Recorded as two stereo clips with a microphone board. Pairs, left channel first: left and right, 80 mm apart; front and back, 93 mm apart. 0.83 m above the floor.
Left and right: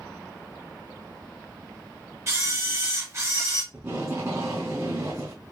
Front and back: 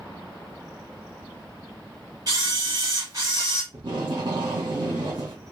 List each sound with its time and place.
2.3 s a camera shutter: 145° right, 1.8 m
3.7 s tape being pulled: 155° right, 1.9 m